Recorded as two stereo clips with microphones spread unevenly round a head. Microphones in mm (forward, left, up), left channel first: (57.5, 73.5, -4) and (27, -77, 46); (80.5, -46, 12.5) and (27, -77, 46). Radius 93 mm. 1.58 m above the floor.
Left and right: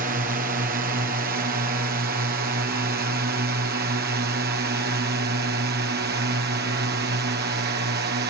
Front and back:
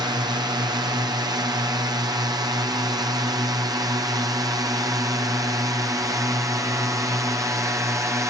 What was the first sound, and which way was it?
A drone, 145° right.